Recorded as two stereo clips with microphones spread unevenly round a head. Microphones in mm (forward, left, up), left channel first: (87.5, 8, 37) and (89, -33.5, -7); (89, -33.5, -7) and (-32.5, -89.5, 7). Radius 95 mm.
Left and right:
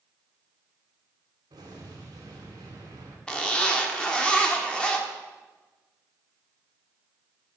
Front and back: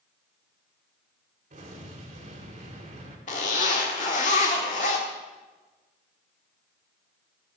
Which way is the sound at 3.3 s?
70° left.